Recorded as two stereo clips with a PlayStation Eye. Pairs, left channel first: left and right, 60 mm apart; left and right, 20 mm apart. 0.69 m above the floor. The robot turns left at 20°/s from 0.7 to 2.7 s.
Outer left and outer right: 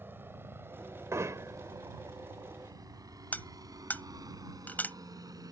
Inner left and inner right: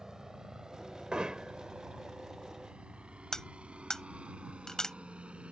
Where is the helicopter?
35° right (ahead or behind); by 5.5 s 80° right.